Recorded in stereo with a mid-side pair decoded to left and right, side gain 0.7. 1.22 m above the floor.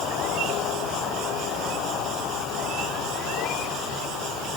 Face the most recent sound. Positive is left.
No sound to turn to.